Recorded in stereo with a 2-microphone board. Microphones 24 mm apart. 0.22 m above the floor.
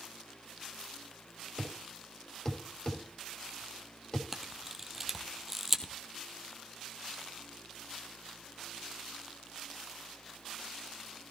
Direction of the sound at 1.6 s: 25° left (ahead or behind).